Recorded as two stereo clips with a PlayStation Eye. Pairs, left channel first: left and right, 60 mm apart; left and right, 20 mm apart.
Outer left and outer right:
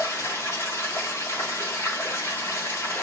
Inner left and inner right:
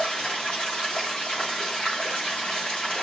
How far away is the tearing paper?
No tearing paper in this recording.